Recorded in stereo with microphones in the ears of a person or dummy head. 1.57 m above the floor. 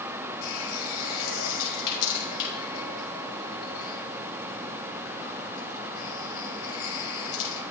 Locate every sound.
0.4 s a running tap: 80° left, 7 m